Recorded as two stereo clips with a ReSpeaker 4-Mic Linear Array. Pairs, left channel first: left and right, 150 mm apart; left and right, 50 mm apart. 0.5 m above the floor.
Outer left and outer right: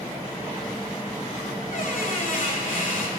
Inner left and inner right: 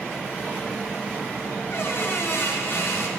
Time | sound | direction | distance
1.7 | a squeak | 65° left (ahead or behind) | 1.4 m